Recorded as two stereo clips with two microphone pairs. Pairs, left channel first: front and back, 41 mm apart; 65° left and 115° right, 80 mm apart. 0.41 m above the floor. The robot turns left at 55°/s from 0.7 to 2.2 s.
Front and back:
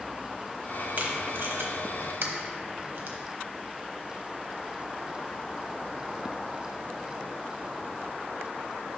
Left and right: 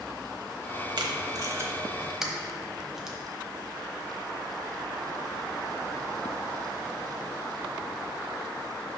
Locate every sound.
1.0 s tape being pulled: 130° right, 0.9 m; by 3.2 s 165° left, 0.9 m